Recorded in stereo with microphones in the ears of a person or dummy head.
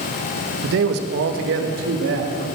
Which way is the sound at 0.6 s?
70° right (ahead or behind).